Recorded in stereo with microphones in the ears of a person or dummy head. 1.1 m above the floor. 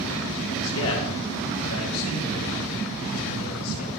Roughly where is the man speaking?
Left.